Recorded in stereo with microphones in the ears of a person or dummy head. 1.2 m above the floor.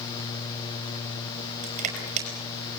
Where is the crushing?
40° right (ahead or behind), 5.5 m.